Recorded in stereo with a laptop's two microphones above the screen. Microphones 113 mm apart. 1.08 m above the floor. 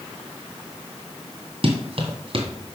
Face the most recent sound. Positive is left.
turn(degrees=-50)  # may be behind; listen again after turning